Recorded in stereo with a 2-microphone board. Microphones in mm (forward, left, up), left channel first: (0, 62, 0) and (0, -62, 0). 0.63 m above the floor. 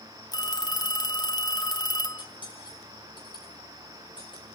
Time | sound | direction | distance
0.3 | a phone ringing | 30° left (ahead or behind) | 0.6 m
2.2 | cutlery clinking | 40° left (ahead or behind) | 4 m